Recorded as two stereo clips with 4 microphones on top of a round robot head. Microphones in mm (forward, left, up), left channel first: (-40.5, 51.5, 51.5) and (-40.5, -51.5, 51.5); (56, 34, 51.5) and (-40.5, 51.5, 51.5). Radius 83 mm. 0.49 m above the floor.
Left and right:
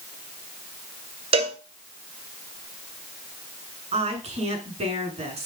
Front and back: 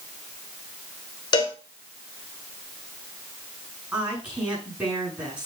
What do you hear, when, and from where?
1.3 s a cowbell: 60° right, 2.0 m
3.9 s a woman speaking: 110° right, 6.5 m